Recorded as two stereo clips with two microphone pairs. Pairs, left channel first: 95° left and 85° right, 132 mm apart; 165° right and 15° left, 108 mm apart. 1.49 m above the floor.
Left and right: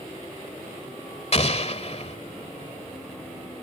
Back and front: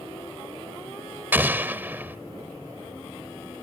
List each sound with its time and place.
1.3 s an explosion: 80° left